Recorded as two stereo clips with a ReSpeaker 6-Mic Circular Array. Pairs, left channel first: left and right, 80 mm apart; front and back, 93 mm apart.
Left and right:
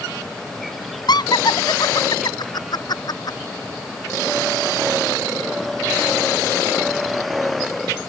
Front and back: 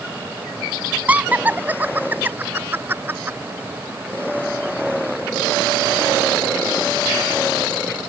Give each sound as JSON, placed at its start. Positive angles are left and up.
{"t": 1.1, "sound": "laughter", "azimuth_deg": 105}